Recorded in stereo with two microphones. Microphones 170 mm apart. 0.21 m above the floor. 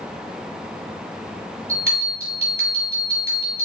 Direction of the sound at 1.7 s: 45° right (ahead or behind).